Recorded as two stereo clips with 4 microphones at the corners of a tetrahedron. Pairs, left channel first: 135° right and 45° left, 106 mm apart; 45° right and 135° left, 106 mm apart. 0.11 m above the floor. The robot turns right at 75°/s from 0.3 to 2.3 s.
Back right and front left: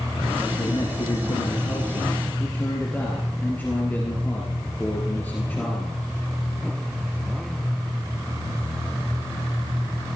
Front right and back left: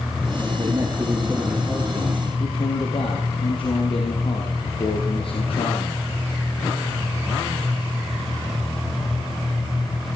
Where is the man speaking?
165° left, 2.5 m; by 6.0 s 65° right, 2.5 m.